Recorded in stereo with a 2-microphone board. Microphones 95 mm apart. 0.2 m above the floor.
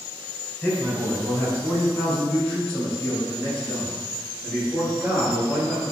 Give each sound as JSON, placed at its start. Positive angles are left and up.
{"t": 0.6, "sound": "a man speaking", "side_deg": 15, "distance_m": 1.1}